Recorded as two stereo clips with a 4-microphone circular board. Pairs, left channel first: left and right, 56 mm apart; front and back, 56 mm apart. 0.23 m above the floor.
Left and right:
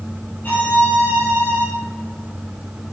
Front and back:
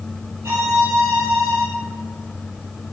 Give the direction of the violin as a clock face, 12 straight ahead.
7 o'clock.